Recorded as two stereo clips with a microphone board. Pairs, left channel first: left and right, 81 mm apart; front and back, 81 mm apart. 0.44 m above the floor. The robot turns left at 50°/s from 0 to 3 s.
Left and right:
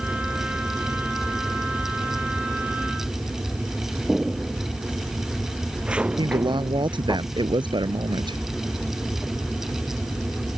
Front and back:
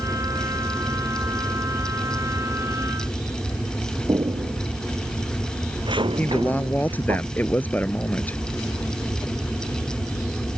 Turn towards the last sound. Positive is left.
turn(degrees=-70)